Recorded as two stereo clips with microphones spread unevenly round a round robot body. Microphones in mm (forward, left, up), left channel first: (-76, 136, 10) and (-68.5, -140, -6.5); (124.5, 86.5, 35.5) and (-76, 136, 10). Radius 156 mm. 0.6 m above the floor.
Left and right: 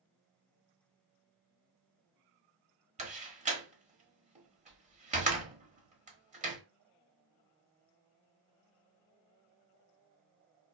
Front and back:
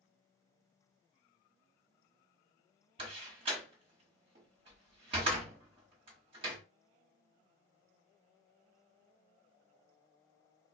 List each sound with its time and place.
3.0 s a door slam: 140° right, 1.0 m